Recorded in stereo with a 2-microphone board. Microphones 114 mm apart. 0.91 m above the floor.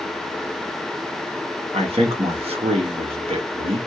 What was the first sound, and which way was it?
A man speaking, 60° right (ahead or behind).